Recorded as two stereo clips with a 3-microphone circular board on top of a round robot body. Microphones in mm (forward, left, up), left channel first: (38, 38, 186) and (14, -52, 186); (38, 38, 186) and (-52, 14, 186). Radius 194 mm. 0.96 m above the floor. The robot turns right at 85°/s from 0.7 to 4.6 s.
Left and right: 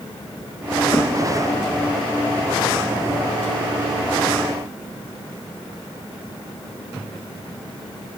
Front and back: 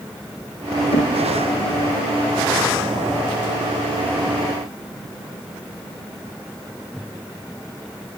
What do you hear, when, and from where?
0.9 s knocking: 10° left, 1.3 m; by 1.2 s 30° left, 1.3 m